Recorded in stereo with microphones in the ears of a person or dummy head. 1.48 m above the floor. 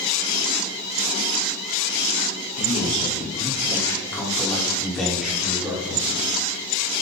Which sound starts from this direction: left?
A man speaking, at 2.6 s.